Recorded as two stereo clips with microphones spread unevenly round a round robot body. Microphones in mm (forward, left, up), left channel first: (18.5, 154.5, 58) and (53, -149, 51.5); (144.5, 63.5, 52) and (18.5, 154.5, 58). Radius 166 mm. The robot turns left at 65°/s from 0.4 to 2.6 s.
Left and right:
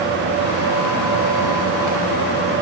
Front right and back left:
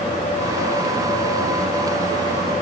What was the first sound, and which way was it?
Only background noise.